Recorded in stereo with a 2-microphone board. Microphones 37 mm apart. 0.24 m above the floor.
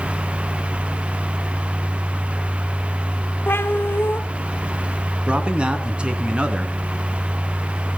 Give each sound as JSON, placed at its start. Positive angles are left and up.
{"t": 3.5, "sound": "a cat meowing", "side_deg": 85, "distance_m": 1.2}
{"t": 5.3, "sound": "a man speaking", "side_deg": -30, "distance_m": 2.5}